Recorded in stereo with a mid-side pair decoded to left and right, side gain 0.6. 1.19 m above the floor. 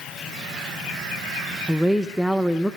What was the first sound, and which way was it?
A woman speaking, straight ahead.